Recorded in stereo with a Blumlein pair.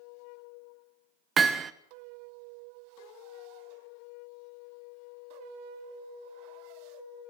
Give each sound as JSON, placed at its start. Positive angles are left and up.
{"t": 1.4, "sound": "hammering", "azimuth_deg": -20, "distance_m": 1.1}